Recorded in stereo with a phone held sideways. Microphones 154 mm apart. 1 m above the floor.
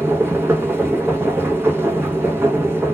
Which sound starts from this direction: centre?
A machine running, at 0.0 s.